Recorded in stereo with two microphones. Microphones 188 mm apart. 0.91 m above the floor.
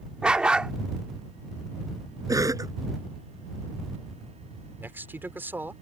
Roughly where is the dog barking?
Centre.